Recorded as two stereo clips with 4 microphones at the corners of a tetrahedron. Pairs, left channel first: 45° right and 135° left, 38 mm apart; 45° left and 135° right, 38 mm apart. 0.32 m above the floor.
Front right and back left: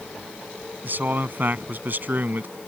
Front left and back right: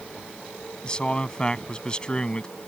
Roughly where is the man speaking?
Left.